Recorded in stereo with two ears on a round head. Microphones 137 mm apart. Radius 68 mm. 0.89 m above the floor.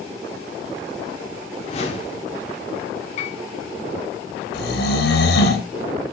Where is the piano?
45° left (ahead or behind), 4.5 m.